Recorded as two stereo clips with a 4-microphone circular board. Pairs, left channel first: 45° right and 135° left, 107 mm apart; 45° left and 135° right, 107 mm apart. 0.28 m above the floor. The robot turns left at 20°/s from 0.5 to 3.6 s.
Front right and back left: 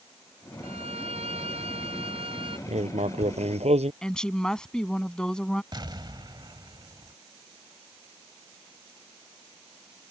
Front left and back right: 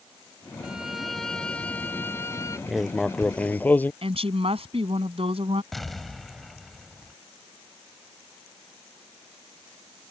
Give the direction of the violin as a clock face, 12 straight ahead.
7 o'clock.